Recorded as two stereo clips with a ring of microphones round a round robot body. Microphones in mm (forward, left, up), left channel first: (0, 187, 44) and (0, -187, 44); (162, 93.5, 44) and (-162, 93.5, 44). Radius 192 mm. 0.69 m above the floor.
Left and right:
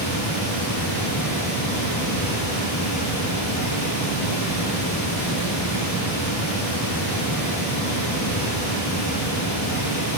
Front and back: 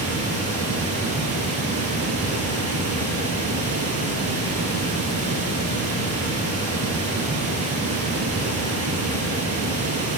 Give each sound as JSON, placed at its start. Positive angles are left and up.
{"t": 0.0, "sound": "running water", "azimuth_deg": 135, "distance_m": 5.5}